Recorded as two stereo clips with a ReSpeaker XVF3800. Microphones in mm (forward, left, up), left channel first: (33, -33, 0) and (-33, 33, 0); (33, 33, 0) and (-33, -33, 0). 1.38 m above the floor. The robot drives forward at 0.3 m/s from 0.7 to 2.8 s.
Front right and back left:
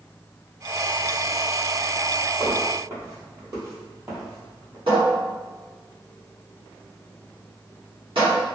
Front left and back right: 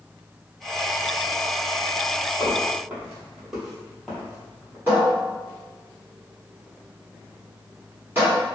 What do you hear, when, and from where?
2.4 s footsteps: 175° left, 1.8 m; by 4.8 s 105° left, 1.6 m
4.9 s a cupboard door: 160° left, 1.4 m